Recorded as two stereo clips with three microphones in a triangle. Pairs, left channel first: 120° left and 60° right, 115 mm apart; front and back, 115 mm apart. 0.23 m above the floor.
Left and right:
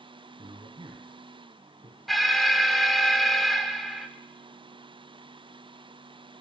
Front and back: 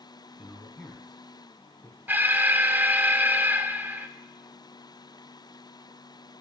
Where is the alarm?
150° right, 0.8 m.